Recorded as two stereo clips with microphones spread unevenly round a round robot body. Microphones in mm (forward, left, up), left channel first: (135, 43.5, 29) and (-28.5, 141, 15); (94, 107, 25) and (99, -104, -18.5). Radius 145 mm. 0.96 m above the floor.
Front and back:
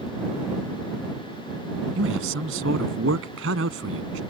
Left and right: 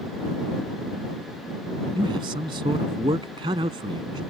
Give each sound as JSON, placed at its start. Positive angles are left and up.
{"t": 1.9, "sound": "a man speaking", "azimuth_deg": -165}